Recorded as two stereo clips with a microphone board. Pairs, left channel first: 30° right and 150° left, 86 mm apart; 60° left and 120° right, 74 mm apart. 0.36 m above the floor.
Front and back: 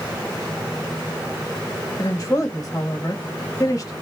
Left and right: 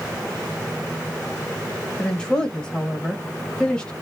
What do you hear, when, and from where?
2.0 s a woman speaking: 10° right, 1.2 m